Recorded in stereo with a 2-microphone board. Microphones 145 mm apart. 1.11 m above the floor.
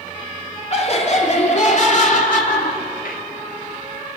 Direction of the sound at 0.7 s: 50° left (ahead or behind).